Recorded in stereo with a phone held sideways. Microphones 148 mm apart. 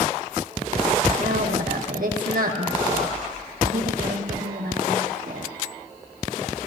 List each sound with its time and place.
1.2 s a woman speaking: 70° right (ahead or behind), 1.6 m